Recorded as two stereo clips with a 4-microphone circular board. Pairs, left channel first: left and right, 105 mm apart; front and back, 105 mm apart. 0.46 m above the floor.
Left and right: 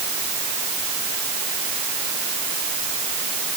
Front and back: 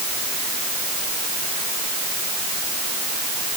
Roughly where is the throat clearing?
No throat clearing in this recording.